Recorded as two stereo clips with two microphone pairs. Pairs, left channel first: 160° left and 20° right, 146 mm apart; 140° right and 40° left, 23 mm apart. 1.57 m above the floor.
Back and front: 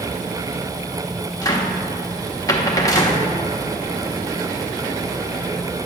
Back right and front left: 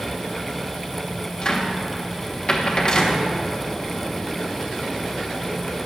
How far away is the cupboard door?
About 1.1 m.